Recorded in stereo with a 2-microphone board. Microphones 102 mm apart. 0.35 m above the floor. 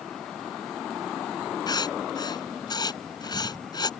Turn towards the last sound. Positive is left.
turn(degrees=45)  # may be behind; listen again after turning